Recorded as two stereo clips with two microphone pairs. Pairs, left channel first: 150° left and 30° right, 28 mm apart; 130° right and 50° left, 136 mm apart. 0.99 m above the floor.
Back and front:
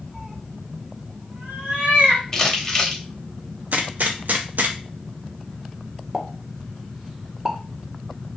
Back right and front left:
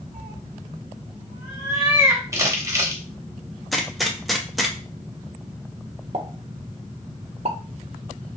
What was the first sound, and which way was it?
A cat meowing, 30° left.